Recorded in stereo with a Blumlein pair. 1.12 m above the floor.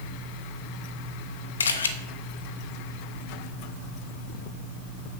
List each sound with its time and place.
1.6 s a camera shutter: 70° left, 1.1 m